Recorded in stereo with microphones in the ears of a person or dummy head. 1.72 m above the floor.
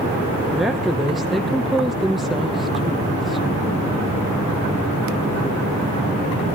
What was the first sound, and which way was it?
A woman speaking, centre (ahead or behind).